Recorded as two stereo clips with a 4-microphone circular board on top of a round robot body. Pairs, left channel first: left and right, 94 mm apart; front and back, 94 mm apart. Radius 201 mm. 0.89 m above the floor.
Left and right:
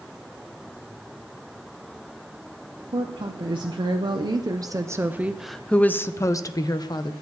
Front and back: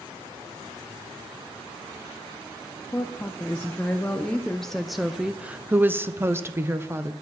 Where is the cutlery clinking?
I don't hear cutlery clinking.